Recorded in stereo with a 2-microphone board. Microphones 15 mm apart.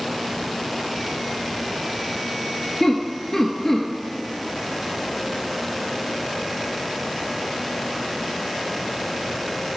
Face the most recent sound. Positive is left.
turn(degrees=15)  # may be behind; listen again after turning